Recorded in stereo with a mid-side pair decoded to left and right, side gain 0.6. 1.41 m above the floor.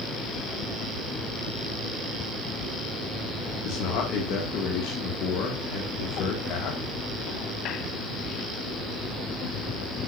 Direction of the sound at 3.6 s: 70° left.